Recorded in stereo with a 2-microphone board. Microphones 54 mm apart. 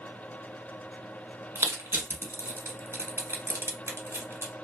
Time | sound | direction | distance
1.6 | crushing | 50° right (ahead or behind) | 1.0 m